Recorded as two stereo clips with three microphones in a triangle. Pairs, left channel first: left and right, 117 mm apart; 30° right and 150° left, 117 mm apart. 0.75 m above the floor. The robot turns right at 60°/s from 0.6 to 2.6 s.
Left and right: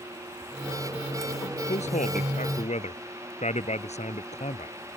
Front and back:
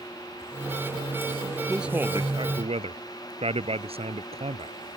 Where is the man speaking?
60° left; by 4.8 s 115° left.